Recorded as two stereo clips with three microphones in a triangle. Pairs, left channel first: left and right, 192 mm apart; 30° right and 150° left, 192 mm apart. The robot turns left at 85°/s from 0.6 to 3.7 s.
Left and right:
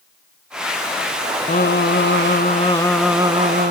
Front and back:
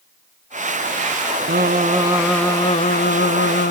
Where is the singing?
130° left, 1.1 m; by 3.7 s 60° right, 1.1 m.